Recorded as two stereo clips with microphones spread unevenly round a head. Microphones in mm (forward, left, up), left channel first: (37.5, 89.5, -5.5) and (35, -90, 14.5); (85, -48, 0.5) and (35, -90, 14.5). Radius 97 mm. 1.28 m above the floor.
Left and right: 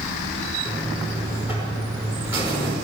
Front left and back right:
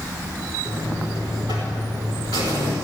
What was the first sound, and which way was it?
A buzzer, 170° right.